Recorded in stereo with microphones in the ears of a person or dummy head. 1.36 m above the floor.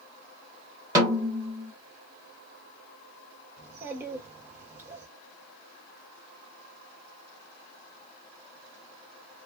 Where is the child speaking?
15° right (ahead or behind), 1.4 m.